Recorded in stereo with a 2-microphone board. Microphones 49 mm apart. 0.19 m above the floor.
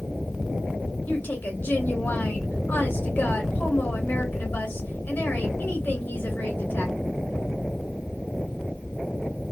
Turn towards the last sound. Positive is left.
turn(degrees=45)  # may be behind; listen again after turning